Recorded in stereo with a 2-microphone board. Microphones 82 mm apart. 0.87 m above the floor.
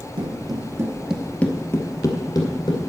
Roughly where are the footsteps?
Right.